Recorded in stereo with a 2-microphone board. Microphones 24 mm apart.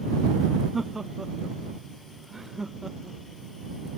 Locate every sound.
0.7 s laughter: 15° right (ahead or behind); by 3.2 s 20° right (ahead or behind)